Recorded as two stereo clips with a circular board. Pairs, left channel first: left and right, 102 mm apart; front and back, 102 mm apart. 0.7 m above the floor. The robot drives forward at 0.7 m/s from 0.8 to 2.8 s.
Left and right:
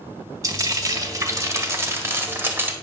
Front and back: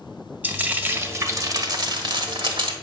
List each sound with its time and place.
0.4 s frying: 120° right, 1.2 m; by 2.7 s 160° right, 2 m